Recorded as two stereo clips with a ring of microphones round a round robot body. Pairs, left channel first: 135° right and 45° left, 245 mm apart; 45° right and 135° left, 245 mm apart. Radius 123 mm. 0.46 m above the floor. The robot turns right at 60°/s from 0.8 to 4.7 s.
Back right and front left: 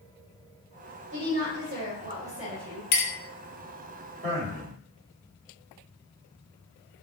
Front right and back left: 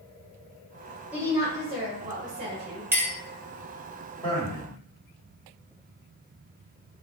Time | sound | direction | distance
1.1 | a woman speaking | 50° left | 2.0 m
2.9 | a clink | 145° right | 0.8 m
4.2 | a man speaking | 15° left | 2 m